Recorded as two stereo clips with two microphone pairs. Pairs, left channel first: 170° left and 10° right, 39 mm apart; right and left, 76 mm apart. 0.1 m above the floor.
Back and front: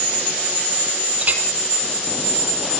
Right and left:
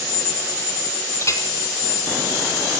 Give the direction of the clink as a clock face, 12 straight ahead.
2 o'clock.